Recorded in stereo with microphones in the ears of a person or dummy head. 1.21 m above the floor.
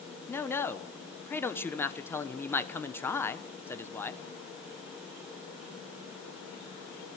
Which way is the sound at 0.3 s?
15° left (ahead or behind).